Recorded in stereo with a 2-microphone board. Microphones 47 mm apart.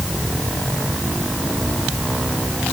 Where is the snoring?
No snoring in this recording.